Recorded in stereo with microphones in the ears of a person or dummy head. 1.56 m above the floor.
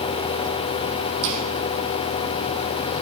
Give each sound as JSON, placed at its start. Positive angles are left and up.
{"t": 1.2, "sound": "footsteps", "side_deg": -65, "distance_m": 3.5}